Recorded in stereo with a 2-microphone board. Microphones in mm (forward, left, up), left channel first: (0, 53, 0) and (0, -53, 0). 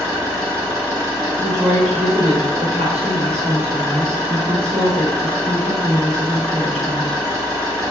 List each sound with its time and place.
0.0 s an engine running: 35° right (ahead or behind), 1.5 m
1.4 s a woman speaking: 80° right, 0.9 m